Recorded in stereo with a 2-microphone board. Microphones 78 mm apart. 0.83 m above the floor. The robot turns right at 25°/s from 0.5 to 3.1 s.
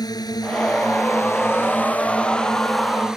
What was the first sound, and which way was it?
A drone, 125° left.